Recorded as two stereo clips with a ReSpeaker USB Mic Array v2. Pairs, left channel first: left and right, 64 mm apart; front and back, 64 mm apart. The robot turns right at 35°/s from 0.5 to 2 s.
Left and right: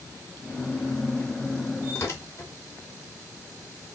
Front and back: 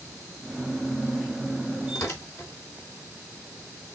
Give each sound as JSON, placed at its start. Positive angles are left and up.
{"t": 1.9, "sound": "tearing paper", "azimuth_deg": 40, "distance_m": 3.5}